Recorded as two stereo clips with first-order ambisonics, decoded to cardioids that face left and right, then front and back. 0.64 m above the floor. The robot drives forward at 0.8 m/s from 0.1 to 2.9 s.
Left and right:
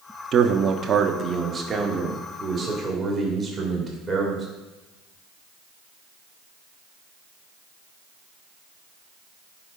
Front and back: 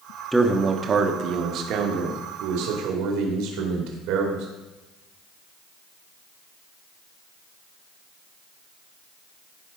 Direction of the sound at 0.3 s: 90° right.